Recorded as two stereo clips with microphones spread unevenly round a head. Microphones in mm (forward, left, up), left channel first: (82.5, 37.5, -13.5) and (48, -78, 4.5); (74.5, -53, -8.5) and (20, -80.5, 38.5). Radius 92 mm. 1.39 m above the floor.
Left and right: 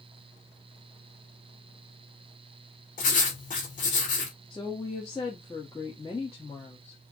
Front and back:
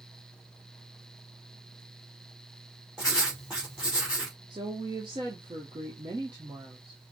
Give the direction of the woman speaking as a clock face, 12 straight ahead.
7 o'clock.